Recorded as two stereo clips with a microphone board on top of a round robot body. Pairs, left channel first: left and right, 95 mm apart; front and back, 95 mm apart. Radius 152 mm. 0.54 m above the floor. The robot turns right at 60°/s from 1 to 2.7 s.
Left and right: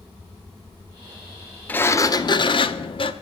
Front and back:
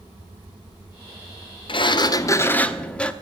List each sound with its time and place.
1.7 s a sliding door: 20° left, 1.1 m; by 3.1 s 80° left, 1.1 m